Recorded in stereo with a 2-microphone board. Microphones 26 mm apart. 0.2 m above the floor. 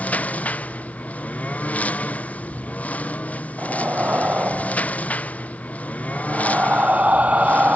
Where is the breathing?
70° right (ahead or behind).